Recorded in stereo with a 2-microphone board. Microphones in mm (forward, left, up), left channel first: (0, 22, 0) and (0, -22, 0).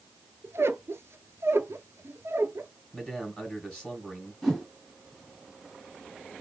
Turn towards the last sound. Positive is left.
turn(degrees=0)  # may be behind; listen again after turning